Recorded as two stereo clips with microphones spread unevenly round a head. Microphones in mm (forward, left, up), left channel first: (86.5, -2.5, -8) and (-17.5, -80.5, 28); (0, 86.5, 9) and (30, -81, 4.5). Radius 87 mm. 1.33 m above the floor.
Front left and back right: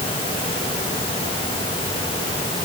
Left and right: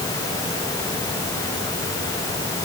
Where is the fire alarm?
I don't hear a fire alarm.